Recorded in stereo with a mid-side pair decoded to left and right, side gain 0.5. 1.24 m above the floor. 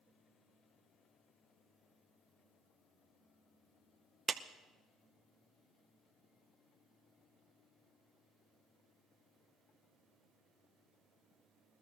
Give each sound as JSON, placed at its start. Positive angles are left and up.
{"t": 4.3, "sound": "a clap", "azimuth_deg": -35, "distance_m": 0.8}